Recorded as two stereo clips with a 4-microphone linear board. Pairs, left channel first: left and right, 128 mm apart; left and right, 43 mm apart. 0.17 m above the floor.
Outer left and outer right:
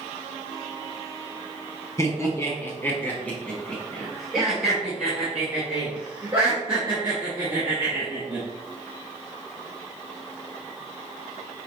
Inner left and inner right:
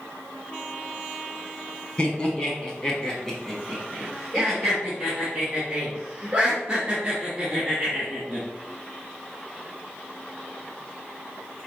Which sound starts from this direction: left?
Laughter, at 2.0 s.